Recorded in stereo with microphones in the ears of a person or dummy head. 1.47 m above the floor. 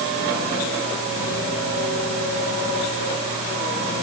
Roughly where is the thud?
No thud in this recording.